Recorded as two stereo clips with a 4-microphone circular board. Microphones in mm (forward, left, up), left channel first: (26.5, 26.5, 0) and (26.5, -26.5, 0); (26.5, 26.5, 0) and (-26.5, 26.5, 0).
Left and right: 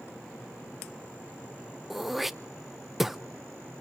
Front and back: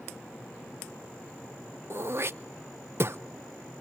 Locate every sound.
1.9 s throat clearing: 175° right, 0.6 m